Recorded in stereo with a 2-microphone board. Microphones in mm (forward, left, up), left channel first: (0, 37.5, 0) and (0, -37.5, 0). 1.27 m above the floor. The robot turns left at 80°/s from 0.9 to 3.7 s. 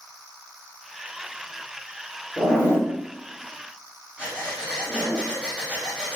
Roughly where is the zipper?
Left.